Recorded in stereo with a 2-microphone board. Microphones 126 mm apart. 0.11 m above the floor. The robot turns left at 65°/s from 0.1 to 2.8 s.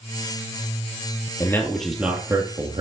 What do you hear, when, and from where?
1.4 s a man speaking: 30° left, 2 m; by 2.8 s 60° right, 2 m